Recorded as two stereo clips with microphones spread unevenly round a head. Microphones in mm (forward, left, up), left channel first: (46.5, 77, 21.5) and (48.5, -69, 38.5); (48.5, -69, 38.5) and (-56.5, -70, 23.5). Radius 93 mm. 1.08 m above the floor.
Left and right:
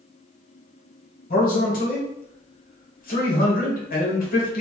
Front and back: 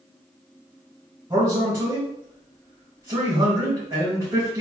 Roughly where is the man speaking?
Behind left.